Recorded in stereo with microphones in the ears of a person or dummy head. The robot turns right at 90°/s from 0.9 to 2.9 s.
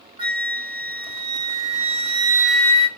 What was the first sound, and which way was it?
A flute, 145° right.